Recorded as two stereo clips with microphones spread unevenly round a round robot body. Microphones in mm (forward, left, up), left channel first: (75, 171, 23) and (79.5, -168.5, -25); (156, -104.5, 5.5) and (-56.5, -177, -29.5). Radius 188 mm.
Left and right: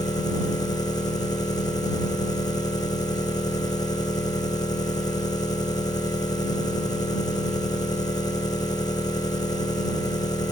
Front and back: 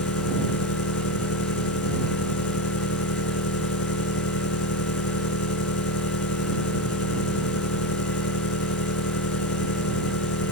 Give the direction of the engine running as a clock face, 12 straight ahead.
12 o'clock.